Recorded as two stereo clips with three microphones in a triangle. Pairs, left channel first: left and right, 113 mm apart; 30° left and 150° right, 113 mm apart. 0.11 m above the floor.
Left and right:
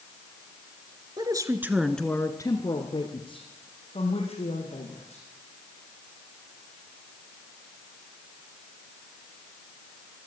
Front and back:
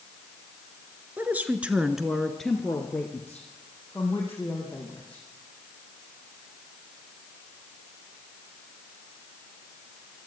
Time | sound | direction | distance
1.2 | a woman speaking | 85° right | 1.4 m